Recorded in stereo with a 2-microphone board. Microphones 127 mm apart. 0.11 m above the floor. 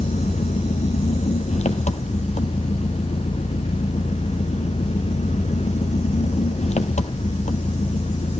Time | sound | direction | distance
0.0 | an engine running | 65° left (ahead or behind) | 0.9 m